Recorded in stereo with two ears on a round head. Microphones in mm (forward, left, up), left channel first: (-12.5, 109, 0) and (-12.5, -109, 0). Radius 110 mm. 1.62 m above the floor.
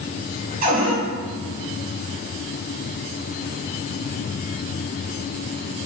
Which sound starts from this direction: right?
A cupboard door, at 0.6 s.